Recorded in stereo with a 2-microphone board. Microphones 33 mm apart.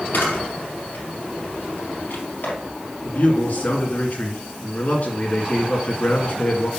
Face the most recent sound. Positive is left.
turn(degrees=55)  # may be behind; listen again after turning